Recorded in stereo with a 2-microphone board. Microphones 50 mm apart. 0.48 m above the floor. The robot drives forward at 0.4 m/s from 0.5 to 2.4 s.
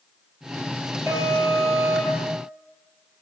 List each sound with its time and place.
1.1 s an alarm: 85° right, 9 m